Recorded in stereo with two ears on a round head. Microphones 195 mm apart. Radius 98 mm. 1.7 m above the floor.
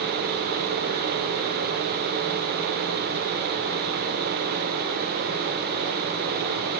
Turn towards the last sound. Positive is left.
No sound to turn to.